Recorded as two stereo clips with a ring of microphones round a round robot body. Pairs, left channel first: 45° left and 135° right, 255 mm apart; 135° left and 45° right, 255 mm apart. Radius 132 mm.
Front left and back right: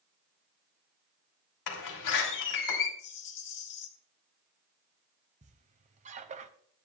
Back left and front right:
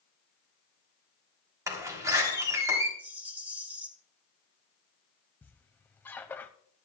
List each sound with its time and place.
1.7 s a door slam: 35° left, 3.5 m
3.0 s a rattle: 40° left, 1.3 m
5.4 s a squeak: 150° right, 0.7 m